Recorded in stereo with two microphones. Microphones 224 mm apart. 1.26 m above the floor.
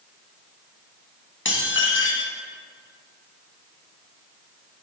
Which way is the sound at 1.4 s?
60° left (ahead or behind).